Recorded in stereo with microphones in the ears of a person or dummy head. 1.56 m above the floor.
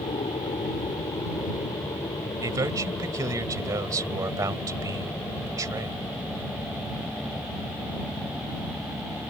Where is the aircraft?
20° left (ahead or behind); by 9.3 s centre (ahead or behind).